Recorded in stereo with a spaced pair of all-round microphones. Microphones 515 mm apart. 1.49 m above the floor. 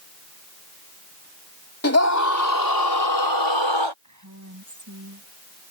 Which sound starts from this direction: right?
A woman speaking, at 4.0 s.